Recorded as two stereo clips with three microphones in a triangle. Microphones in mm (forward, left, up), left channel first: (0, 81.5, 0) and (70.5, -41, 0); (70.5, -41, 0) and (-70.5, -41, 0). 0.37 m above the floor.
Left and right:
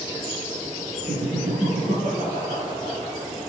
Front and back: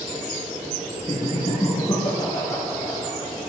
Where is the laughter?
55° right, 6 m; by 3.5 s 65° right, 7 m.